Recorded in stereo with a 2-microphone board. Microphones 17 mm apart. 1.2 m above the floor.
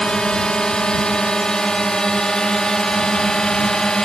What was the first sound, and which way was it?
A drone, 60° left (ahead or behind).